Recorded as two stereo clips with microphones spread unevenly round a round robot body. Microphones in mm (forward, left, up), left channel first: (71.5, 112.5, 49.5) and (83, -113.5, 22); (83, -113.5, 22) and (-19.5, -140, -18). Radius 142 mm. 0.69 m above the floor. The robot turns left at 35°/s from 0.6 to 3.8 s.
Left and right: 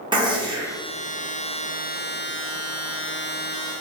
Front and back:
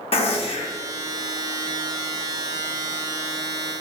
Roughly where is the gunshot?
Ahead right.